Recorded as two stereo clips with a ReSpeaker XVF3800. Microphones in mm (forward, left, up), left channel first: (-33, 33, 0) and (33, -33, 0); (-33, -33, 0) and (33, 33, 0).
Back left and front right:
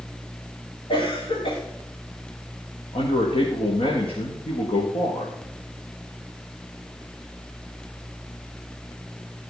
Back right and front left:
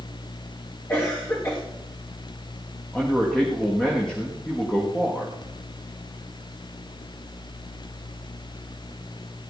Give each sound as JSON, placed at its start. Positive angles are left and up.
{"t": 0.9, "sound": "a cough", "azimuth_deg": 160, "distance_m": 6.0}
{"t": 2.9, "sound": "a man speaking", "azimuth_deg": 145, "distance_m": 4.5}